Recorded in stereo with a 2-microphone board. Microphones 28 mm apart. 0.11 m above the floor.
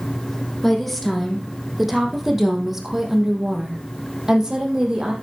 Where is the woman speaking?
10° left (ahead or behind), 4 m; by 5.1 s 25° right (ahead or behind), 4 m.